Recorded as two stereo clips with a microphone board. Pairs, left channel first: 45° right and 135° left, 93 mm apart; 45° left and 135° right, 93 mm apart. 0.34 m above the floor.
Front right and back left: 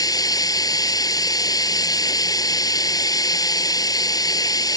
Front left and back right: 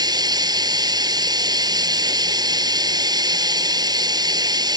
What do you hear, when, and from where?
0.0 s running water: 95° right